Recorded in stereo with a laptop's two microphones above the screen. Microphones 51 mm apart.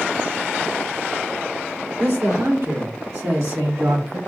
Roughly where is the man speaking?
Right.